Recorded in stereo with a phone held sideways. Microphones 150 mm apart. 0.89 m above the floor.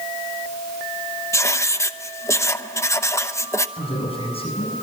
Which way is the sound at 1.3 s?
20° left (ahead or behind).